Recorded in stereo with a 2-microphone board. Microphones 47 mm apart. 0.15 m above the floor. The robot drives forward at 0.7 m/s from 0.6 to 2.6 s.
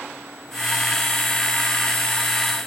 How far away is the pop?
I don't hear a pop.